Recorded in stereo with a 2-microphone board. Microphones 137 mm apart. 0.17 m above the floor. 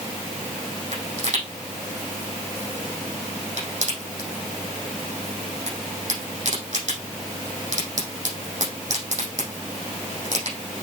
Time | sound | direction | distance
0.9 | a pop | 65° right (ahead or behind) | 6 m